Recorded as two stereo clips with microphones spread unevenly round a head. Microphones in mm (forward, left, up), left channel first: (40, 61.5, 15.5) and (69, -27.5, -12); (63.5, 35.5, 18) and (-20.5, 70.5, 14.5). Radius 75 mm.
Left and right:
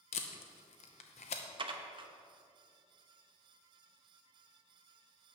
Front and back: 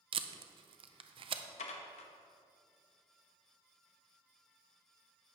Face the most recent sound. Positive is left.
turn(degrees=-35)